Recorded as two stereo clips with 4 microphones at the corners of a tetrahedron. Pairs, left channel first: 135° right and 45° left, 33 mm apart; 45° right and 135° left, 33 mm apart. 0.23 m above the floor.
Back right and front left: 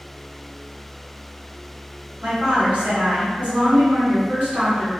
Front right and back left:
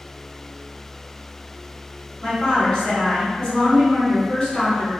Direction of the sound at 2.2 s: 30° left.